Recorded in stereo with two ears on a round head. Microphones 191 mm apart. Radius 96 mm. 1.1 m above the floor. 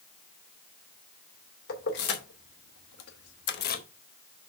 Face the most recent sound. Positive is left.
turn(degrees=40)  # may be behind; listen again after turning